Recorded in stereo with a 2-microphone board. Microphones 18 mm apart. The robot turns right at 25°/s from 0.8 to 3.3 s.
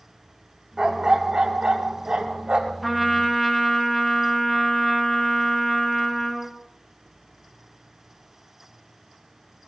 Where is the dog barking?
125° right, 1.6 m; by 2.7 s 80° right, 1.6 m.